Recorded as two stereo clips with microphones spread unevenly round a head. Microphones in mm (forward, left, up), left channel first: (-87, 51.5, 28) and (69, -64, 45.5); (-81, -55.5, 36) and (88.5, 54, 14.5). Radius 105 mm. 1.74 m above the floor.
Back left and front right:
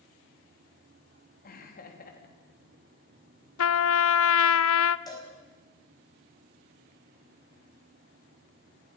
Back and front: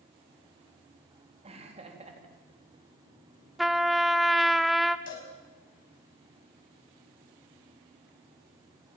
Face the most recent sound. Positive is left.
turn(degrees=-140)